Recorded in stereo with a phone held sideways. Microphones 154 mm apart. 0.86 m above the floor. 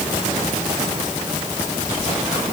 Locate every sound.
Only background noise.